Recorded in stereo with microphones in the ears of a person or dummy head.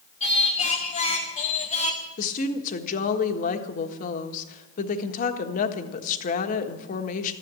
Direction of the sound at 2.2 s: 50° left (ahead or behind).